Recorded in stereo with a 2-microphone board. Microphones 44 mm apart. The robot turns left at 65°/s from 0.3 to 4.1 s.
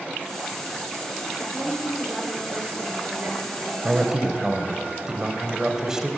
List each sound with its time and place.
1.4 s a woman speaking: 35° left, 4.5 m; by 3.7 s 120° right, 4.5 m
3.8 s a man speaking: 20° right (ahead or behind), 1.1 m; by 6.1 s 15° right (ahead or behind), 1.1 m